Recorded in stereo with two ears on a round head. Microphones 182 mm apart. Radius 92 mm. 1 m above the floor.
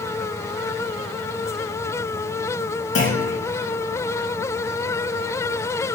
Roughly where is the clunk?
Left.